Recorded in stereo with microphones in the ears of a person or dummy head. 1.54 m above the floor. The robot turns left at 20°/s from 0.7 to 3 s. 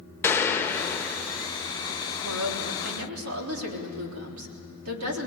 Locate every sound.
0.2 s a gunshot: 15° left (ahead or behind), 1.4 m; by 1.5 s 5° left (ahead or behind), 1.4 m
2.2 s a woman speaking: 75° right (ahead or behind), 4 m; by 5.3 s 90° right, 4 m